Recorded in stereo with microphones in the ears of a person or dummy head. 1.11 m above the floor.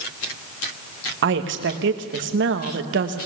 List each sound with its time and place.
1.2 s a woman speaking: 60° right (ahead or behind), 1.5 m